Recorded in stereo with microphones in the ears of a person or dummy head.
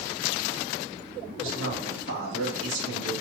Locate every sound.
1.4 s a man speaking: 85° right, 3 m; by 3.1 s 65° right (ahead or behind), 3 m